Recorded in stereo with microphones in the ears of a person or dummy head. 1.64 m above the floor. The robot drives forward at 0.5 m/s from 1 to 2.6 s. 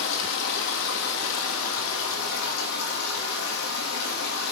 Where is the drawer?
No drawer in this recording.